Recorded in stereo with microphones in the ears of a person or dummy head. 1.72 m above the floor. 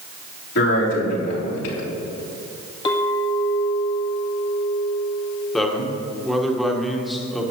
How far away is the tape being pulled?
I don't hear tape being pulled.